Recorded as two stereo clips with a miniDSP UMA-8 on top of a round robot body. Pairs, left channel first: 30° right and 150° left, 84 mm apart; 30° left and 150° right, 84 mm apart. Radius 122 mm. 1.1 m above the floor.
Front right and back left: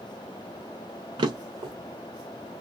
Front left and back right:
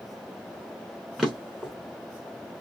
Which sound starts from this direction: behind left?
A drawer, at 1.2 s.